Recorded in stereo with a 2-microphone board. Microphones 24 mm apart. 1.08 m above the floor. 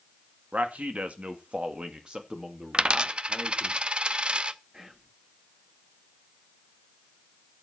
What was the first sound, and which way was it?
A man speaking, 75° right (ahead or behind).